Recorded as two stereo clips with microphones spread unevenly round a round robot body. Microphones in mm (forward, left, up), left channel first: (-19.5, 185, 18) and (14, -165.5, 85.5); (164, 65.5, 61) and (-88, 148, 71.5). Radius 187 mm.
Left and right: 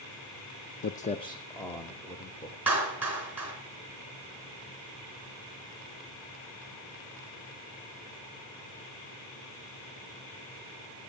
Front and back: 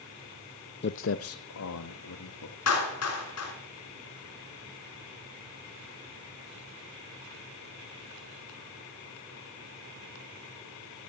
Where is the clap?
5° left, 4.5 m.